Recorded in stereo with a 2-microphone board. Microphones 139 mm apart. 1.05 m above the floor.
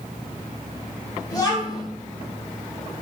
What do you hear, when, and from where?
1.3 s a child speaking: 25° left (ahead or behind), 1.2 m